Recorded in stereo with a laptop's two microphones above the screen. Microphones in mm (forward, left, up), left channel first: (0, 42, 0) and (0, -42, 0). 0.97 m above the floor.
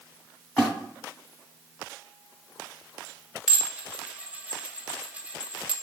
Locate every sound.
0.6 s a splash: 5° left (ahead or behind), 2 m
3.5 s dishes clattering: 15° right (ahead or behind), 0.7 m